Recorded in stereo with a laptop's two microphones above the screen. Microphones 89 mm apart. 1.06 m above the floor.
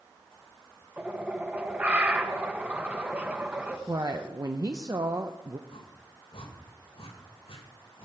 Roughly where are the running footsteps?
I don't hear running footsteps.